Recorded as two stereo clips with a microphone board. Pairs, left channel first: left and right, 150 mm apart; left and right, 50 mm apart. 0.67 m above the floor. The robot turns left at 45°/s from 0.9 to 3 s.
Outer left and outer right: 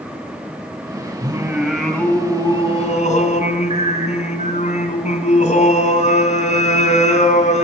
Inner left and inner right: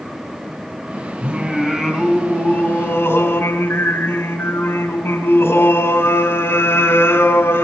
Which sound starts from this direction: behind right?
Singing, at 1.2 s.